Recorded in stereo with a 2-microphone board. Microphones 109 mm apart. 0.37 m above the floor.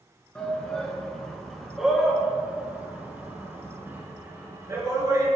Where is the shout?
10° left (ahead or behind), 3.5 m; by 5.3 s 30° right (ahead or behind), 4.5 m.